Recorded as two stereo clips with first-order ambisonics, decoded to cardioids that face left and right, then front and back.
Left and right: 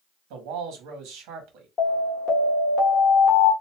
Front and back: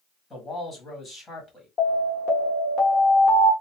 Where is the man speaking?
75° right, 1.5 m.